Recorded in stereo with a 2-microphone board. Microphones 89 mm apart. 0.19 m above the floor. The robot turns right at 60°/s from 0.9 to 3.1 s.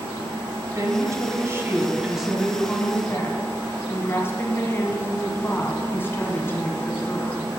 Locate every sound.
0.8 s a woman speaking: 90° right, 1.3 m; by 7.5 s 45° left, 1.3 m